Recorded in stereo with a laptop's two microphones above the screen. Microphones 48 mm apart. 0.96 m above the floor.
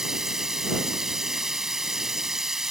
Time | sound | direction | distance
0.0 | running water | 10° right (ahead or behind) | ?